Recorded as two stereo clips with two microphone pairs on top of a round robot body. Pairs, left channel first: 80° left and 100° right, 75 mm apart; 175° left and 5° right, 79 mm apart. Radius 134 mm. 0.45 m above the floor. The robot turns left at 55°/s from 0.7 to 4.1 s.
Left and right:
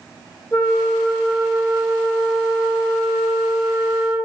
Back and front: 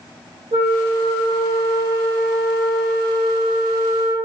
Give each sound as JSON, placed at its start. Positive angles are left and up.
{"t": 0.5, "sound": "a flute", "azimuth_deg": 15, "distance_m": 0.7}